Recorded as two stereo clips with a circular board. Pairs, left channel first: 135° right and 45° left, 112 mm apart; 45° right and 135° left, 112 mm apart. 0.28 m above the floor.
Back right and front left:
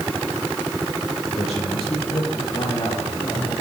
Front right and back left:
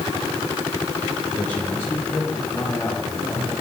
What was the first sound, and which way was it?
A man speaking, 120° right.